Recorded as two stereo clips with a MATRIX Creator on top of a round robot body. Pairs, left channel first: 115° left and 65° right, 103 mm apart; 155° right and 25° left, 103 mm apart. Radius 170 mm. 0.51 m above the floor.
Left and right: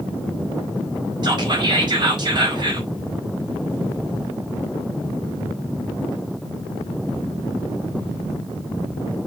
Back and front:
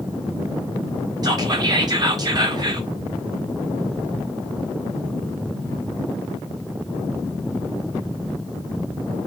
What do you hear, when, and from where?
1.2 s whispering: 25° right, 1.8 m